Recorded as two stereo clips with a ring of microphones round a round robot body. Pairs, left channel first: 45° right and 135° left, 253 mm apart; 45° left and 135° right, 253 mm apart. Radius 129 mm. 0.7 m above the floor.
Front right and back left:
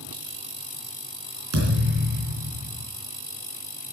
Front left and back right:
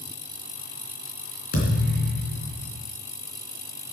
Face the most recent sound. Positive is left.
turn(degrees=100)